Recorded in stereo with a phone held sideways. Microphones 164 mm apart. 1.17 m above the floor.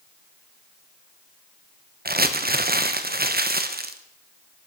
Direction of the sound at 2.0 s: 70° right (ahead or behind).